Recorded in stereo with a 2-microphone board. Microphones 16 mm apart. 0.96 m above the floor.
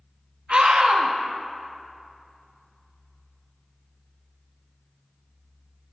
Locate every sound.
0.5 s a scream: 65° right (ahead or behind), 1.8 m